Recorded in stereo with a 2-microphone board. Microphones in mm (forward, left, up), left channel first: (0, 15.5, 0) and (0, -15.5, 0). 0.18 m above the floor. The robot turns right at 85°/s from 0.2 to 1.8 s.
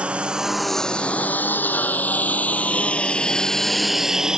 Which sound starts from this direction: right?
A lawn mower, at 0.0 s.